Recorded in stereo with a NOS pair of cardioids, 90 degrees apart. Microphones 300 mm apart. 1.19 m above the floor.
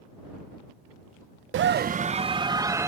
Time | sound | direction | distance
1.5 | a scream | 45° right | ?